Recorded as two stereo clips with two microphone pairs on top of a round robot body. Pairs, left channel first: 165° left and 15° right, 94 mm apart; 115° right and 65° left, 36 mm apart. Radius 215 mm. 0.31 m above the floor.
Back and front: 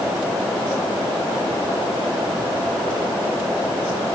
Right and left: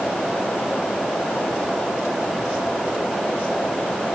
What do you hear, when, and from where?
Only background noise.